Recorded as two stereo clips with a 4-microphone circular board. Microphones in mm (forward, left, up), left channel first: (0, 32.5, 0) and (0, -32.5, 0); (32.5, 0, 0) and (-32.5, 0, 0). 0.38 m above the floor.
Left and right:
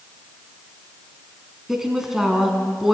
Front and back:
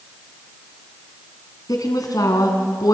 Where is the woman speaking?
5° right, 3.5 m.